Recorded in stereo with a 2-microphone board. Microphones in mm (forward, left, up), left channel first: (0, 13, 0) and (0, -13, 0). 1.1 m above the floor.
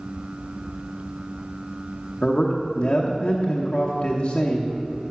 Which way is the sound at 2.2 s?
35° left (ahead or behind).